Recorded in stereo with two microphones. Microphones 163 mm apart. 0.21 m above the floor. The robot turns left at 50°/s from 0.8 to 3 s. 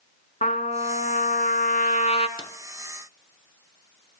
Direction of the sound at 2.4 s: 25° left (ahead or behind).